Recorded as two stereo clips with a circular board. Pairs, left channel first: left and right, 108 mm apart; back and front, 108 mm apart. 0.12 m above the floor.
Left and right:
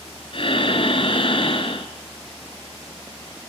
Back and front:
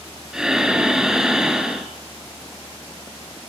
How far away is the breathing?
About 1.6 m.